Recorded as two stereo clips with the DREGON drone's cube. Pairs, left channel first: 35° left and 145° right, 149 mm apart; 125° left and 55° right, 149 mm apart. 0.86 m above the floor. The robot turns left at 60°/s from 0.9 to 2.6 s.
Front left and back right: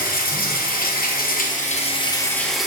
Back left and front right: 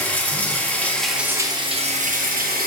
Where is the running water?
45° left, 0.8 m; by 2.7 s 55° right, 0.8 m.